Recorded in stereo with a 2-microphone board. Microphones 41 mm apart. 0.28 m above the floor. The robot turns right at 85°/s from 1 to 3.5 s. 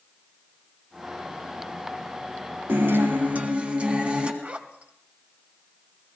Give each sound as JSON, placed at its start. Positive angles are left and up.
{"t": 2.7, "sound": "a guitar", "azimuth_deg": -105, "distance_m": 2.5}
{"t": 4.4, "sound": "a zipper", "side_deg": -35, "distance_m": 1.7}